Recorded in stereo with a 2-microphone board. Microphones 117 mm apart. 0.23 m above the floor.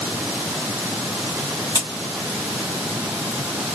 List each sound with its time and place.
1.8 s a crack: 30° left (ahead or behind), 1.1 m